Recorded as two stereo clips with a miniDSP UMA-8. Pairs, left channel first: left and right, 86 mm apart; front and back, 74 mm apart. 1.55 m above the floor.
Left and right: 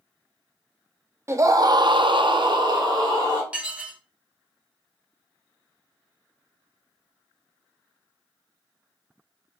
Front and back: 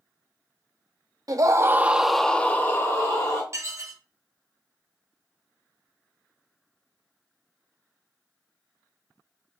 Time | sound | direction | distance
1.3 | a scream | 150° right | 0.6 m
3.5 | dishes clattering | 160° right | 0.7 m